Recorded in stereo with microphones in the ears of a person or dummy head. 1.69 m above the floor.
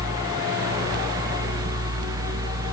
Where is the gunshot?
No gunshot in this recording.